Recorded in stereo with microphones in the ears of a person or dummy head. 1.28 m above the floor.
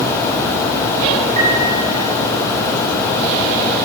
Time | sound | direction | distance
1.4 | a piano | 45° right (ahead or behind) | 5.5 m